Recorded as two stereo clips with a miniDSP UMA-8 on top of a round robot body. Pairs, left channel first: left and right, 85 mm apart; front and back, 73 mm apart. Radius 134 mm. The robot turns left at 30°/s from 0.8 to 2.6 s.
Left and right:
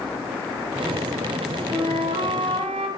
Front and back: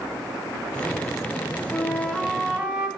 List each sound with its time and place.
1.7 s a flute: 75° right, 0.7 m; by 2.9 s 105° right, 0.7 m